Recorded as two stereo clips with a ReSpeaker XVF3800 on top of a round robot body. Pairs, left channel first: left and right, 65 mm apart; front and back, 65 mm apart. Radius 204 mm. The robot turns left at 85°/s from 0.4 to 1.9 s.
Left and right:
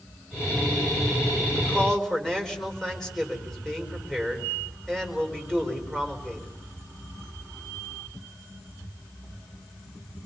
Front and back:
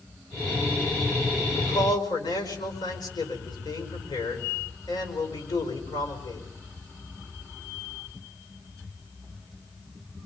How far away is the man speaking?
About 5 m.